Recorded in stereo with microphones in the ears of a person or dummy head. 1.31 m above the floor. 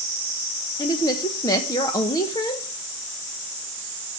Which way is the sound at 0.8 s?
25° left (ahead or behind).